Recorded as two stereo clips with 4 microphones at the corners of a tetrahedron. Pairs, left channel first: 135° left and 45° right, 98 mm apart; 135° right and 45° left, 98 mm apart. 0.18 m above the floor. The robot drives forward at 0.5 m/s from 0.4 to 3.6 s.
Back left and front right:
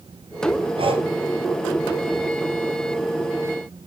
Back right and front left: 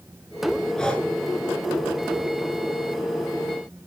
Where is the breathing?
50° right, 0.9 m; by 1.1 s 60° right, 0.8 m.